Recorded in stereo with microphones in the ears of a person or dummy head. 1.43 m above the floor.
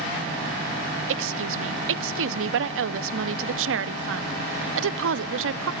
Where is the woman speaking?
80° right, 0.5 m.